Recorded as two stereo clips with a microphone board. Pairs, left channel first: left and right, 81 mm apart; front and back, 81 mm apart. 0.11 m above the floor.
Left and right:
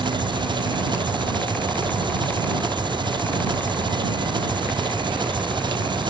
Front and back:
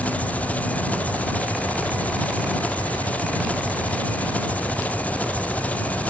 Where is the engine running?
70° right.